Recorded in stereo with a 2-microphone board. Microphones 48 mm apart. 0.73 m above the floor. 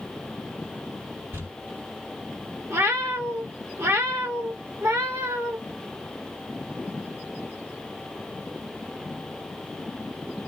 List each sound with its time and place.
1.3 s crumpling: 60° right (ahead or behind), 1.8 m
2.7 s a cat meowing: 70° right (ahead or behind), 0.9 m